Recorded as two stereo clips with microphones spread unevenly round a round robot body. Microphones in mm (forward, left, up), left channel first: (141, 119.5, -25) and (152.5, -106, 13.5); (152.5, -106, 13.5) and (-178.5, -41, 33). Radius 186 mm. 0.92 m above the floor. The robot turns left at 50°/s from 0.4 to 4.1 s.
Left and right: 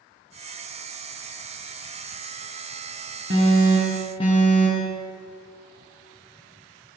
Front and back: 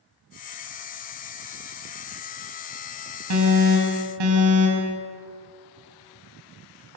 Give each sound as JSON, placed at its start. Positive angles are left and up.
{"t": 3.3, "sound": "an alarm", "azimuth_deg": -150, "distance_m": 4.5}